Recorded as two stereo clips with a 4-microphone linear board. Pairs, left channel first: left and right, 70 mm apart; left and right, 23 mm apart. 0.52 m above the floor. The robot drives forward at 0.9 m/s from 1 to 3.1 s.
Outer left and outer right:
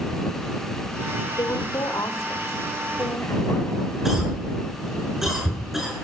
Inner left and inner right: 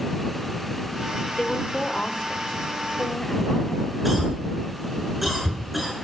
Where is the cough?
5° right (ahead or behind), 7 m.